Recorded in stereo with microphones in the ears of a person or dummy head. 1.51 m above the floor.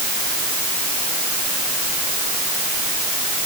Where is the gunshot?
I don't hear a gunshot.